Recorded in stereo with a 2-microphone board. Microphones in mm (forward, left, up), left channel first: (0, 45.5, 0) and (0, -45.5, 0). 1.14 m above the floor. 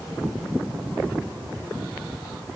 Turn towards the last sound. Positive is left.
No sound to turn to.